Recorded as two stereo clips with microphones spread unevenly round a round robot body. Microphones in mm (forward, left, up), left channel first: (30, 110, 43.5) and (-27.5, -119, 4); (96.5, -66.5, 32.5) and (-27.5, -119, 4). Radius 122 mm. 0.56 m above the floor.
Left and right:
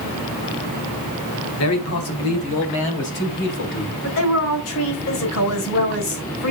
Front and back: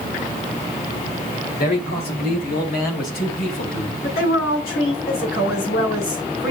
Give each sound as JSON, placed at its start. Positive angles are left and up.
{"t": 1.6, "sound": "a man speaking", "azimuth_deg": 50, "distance_m": 2.5}
{"t": 4.0, "sound": "a woman speaking", "azimuth_deg": 50, "distance_m": 5.0}